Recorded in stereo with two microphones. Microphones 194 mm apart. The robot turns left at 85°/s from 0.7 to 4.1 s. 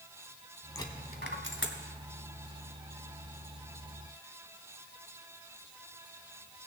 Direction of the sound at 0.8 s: 15° left (ahead or behind).